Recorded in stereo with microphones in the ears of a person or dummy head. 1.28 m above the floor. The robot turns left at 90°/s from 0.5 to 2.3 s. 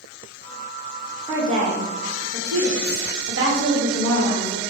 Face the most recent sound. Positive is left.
turn(degrees=-105)